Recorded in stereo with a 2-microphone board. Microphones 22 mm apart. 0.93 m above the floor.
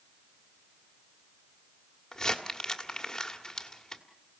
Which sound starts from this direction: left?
Crumpling, at 2.1 s.